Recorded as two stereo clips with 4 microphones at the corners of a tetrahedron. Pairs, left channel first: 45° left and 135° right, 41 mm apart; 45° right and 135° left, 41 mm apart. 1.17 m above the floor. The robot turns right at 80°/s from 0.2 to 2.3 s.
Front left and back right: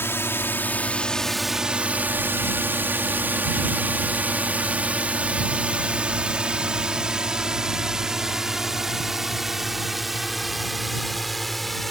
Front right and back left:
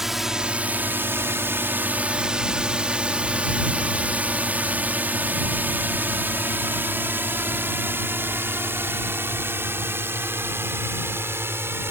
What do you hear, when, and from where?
0.0 s a drone: 50° left; by 11.9 s 135° left